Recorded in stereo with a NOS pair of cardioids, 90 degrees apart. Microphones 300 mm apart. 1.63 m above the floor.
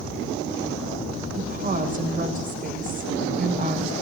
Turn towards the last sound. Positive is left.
turn(degrees=-25)